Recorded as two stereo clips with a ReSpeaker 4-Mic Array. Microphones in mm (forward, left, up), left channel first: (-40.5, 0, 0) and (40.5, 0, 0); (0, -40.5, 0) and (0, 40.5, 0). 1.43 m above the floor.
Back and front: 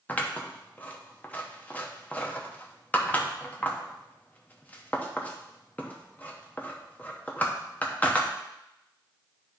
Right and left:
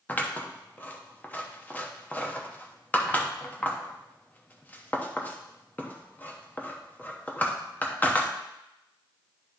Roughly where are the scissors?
Behind right.